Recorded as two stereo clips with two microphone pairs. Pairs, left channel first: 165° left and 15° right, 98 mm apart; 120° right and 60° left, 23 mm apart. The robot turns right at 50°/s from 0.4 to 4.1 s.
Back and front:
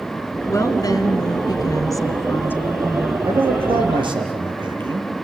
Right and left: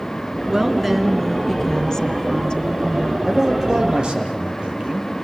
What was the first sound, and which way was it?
A woman speaking, 120° left.